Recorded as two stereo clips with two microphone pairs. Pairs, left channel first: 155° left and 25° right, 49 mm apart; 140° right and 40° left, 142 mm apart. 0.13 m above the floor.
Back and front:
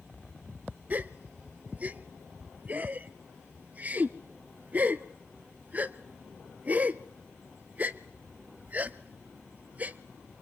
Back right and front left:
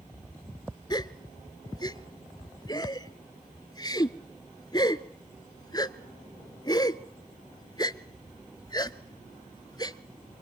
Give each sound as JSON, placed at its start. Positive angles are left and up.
{"t": 0.9, "sound": "a gasp", "azimuth_deg": -80, "distance_m": 0.6}